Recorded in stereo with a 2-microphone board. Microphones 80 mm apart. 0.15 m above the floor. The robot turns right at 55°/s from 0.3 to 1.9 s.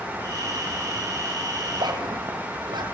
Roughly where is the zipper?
Right.